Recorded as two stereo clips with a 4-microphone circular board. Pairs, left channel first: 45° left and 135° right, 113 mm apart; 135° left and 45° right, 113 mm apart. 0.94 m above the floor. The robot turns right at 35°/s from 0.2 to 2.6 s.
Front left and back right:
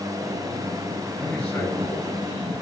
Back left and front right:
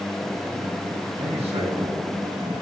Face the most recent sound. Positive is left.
turn(degrees=10)